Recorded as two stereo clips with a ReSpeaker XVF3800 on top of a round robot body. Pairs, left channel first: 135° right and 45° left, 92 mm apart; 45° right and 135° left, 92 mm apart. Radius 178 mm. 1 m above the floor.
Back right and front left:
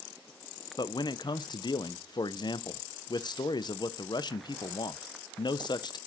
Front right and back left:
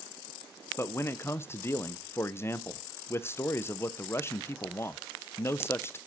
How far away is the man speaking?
About 0.7 m.